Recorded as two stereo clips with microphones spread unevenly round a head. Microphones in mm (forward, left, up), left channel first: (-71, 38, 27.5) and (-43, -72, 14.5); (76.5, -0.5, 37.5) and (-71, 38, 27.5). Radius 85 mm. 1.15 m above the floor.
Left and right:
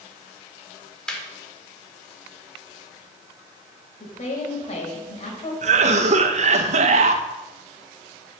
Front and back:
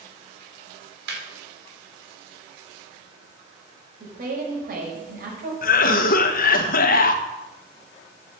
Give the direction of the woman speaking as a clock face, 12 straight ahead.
8 o'clock.